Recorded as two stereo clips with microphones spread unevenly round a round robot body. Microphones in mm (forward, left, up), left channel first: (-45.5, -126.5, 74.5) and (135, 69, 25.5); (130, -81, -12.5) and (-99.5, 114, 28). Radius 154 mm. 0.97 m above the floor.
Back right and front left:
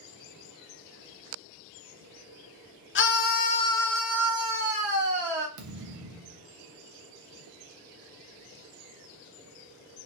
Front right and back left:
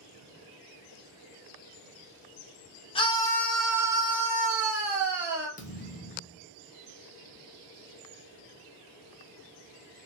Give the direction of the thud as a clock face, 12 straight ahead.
11 o'clock.